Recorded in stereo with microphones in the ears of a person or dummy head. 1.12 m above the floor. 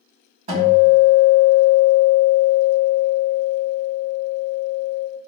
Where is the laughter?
No laughter in this recording.